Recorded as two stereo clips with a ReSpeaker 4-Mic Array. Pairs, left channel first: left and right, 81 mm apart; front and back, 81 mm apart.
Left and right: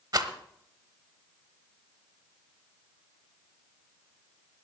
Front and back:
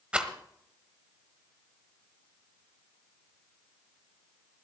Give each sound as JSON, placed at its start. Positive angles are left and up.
{"t": 0.1, "sound": "a rattle", "azimuth_deg": -105, "distance_m": 1.2}